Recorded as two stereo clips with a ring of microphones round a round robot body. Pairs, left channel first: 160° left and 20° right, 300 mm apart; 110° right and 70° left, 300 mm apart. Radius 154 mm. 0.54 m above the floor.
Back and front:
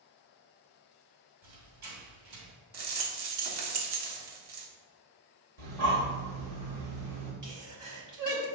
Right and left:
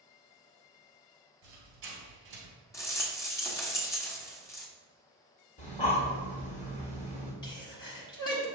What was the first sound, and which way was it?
A squeak, 15° left.